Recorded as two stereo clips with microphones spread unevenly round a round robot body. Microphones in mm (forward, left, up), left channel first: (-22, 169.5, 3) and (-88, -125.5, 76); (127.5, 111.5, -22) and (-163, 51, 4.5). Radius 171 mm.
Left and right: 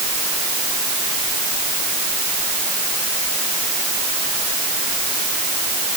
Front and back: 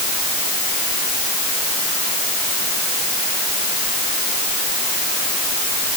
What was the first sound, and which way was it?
Only background noise.